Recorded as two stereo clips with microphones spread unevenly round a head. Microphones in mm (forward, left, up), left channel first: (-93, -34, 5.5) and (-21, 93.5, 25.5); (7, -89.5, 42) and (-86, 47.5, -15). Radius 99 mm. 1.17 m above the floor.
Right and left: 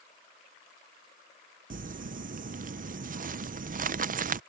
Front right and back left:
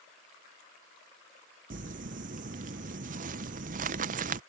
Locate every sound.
1.7 s crumpling: 95° left